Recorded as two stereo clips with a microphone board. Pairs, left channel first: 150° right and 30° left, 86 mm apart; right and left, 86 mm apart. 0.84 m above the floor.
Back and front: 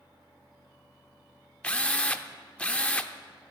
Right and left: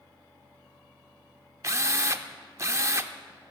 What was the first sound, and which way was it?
A drill, 135° left.